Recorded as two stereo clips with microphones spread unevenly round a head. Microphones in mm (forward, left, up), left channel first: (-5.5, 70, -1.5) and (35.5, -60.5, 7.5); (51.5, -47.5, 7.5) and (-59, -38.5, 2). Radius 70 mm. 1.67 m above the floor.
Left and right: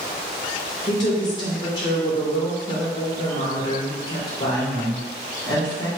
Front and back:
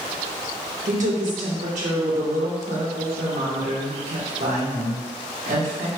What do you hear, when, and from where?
0.9 s a woman speaking: 170° left, 1.5 m